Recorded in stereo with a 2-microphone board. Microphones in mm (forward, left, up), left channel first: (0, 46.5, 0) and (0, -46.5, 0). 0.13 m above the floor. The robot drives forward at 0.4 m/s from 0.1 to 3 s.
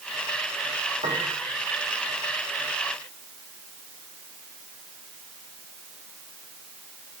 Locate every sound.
1.0 s a piano: 75° right (ahead or behind), 4 m